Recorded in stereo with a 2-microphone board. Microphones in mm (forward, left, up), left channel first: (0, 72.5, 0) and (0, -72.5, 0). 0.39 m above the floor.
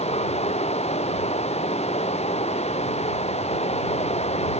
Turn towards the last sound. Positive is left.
turn(degrees=45)  # may be behind; listen again after turning